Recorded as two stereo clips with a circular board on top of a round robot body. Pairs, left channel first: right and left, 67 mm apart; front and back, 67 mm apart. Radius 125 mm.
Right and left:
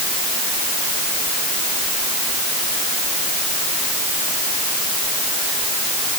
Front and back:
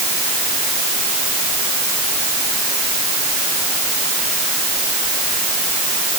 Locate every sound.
Only background noise.